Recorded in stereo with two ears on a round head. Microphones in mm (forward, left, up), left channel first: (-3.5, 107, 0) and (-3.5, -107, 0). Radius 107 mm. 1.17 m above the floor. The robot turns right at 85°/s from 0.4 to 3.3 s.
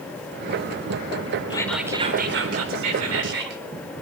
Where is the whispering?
160° left, 4 m; by 3.6 s 50° right, 4 m.